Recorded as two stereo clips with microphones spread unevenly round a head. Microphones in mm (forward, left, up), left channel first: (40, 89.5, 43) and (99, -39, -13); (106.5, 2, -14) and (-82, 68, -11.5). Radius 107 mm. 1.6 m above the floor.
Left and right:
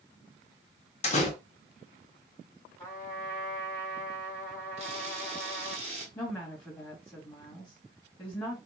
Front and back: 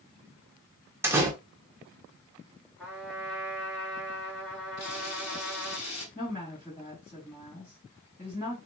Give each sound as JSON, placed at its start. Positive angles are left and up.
{"t": 1.0, "sound": "a door slam", "azimuth_deg": 80, "distance_m": 1.1}
{"t": 2.8, "sound": "a trumpet", "azimuth_deg": 65, "distance_m": 1.8}
{"t": 4.8, "sound": "a camera shutter", "azimuth_deg": -20, "distance_m": 1.7}
{"t": 6.2, "sound": "a woman speaking", "azimuth_deg": 55, "distance_m": 2.0}